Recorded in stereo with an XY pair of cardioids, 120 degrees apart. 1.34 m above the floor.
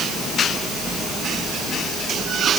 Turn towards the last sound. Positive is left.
No sound to turn to.